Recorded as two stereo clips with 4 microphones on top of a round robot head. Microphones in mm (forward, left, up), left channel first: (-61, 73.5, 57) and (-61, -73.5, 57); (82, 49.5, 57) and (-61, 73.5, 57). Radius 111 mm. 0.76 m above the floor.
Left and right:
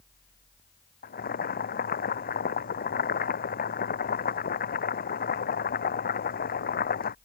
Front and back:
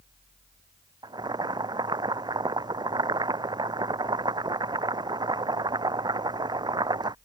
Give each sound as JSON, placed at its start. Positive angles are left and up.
{"t": 1.0, "sound": "boiling", "azimuth_deg": 110}